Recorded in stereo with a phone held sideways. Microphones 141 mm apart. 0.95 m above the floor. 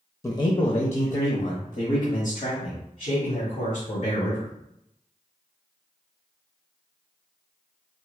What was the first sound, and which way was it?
A man speaking, 20° left (ahead or behind).